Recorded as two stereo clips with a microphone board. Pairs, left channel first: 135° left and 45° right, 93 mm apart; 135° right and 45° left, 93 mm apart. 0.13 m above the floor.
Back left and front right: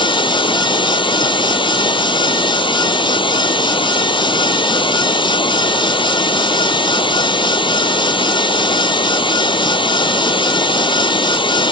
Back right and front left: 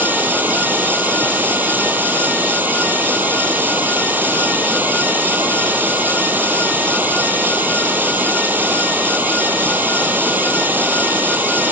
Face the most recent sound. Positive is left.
turn(degrees=115)